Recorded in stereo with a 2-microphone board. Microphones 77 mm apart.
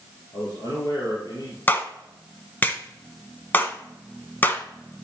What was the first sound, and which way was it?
A man speaking, 55° left (ahead or behind).